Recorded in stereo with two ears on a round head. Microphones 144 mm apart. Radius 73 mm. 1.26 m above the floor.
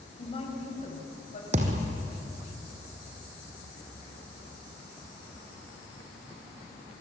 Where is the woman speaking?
35° left (ahead or behind), 6 m; by 1.4 s 45° left (ahead or behind), 7 m.